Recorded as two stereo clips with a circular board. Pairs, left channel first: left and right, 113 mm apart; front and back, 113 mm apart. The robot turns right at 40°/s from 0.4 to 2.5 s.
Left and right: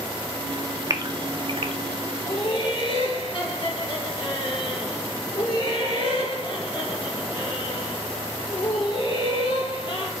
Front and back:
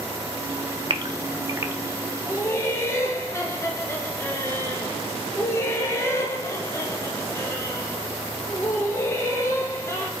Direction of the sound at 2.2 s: 55° left.